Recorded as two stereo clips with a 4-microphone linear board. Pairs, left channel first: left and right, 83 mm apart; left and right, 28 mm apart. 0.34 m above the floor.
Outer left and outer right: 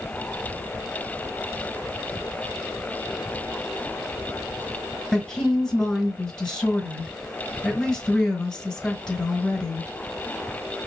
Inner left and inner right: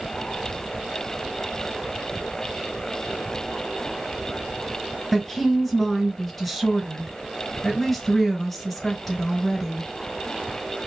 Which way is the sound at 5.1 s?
15° left (ahead or behind).